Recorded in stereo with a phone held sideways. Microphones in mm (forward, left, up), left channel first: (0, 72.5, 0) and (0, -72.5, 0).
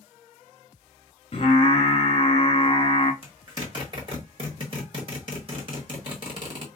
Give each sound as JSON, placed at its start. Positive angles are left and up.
{"t": 1.3, "sound": "singing", "side_deg": 40, "distance_m": 1.0}
{"t": 3.2, "sound": "a zipper", "side_deg": -35, "distance_m": 1.7}